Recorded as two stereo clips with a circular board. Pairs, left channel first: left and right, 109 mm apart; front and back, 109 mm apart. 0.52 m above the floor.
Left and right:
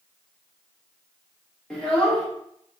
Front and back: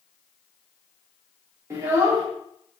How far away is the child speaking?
About 0.9 m.